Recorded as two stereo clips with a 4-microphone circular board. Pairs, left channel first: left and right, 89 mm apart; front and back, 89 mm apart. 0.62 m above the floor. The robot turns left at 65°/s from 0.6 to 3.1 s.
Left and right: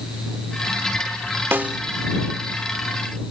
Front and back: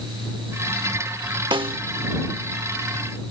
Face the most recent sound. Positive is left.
turn(degrees=100)